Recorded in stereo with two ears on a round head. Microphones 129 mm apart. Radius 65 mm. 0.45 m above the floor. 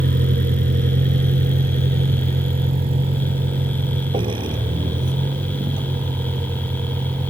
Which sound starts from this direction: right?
A vehicle, at 0.0 s.